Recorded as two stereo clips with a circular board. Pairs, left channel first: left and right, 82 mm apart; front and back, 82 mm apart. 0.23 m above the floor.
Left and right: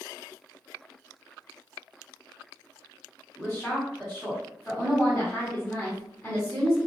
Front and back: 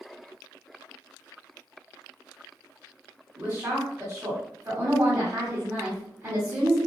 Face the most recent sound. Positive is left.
turn(degrees=150)